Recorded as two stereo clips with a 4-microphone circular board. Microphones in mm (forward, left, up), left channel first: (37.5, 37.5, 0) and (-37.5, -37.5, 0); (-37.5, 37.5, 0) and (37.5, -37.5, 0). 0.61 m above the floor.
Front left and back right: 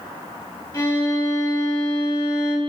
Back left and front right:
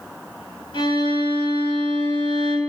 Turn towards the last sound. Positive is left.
turn(degrees=95)